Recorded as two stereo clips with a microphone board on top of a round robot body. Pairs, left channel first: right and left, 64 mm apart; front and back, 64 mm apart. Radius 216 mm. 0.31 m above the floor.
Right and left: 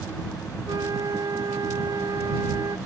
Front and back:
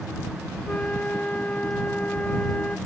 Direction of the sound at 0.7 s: 70° left.